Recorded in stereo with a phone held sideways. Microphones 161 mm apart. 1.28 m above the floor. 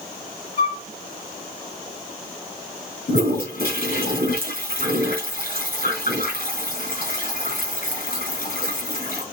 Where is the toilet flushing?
70° left (ahead or behind), 6.5 m.